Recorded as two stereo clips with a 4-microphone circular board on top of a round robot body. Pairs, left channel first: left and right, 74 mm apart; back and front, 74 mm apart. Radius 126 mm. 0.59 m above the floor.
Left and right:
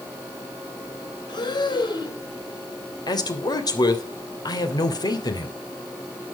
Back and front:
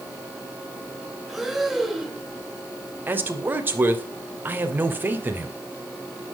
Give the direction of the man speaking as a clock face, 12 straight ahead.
10 o'clock.